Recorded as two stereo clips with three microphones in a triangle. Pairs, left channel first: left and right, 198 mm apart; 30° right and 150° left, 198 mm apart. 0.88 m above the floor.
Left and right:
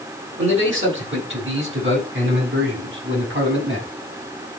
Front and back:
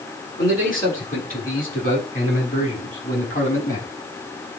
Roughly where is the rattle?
No rattle in this recording.